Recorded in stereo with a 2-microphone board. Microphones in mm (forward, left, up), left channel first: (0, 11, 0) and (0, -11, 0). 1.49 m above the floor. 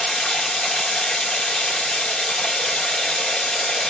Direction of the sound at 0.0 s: 45° left (ahead or behind).